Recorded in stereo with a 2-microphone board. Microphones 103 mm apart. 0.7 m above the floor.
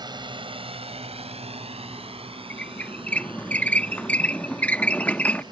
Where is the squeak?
15° left (ahead or behind).